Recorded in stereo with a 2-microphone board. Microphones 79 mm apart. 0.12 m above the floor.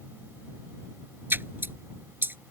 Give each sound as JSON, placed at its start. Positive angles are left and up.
{"t": 1.3, "sound": "a splash", "side_deg": -30}